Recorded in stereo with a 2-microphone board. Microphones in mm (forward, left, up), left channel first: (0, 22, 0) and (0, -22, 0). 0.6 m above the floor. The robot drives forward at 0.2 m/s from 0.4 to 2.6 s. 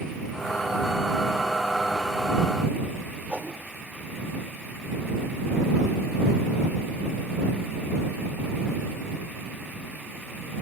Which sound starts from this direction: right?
A whoosh, at 3.3 s.